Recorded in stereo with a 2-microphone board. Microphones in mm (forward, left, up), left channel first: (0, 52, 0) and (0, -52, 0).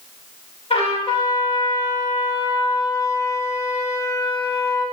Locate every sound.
0.7 s a trumpet: 75° left (ahead or behind), 4 m